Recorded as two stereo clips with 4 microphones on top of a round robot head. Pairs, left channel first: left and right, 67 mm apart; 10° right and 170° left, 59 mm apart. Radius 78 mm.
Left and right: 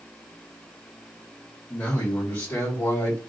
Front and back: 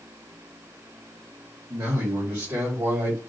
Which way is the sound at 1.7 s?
155° left.